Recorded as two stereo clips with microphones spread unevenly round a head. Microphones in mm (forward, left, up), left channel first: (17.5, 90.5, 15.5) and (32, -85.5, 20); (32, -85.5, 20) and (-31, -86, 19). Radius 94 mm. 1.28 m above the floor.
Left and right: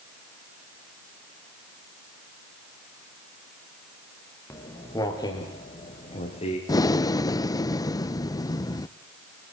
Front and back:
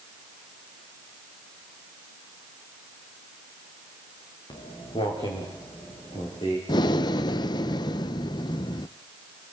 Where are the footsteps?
20° left, 7.5 m; by 6.6 s 40° left, 8.5 m.